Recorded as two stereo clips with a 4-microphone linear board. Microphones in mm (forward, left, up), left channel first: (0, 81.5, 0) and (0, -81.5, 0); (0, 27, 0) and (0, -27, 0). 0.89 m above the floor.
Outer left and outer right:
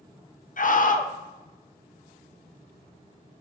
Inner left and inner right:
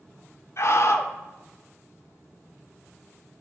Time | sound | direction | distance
0.6 | a scream | 55° left (ahead or behind) | 0.5 m